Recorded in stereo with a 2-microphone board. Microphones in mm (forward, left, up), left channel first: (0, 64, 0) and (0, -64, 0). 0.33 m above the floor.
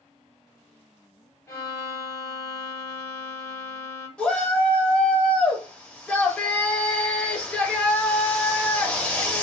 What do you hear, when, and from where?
1.5 s a violin: 25° left (ahead or behind), 1.8 m
4.2 s a shout: 10° left (ahead or behind), 1.0 m